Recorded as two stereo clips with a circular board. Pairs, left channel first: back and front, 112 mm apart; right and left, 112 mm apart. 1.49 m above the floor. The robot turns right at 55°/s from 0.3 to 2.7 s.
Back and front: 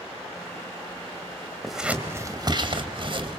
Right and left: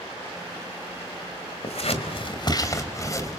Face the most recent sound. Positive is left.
turn(degrees=-35)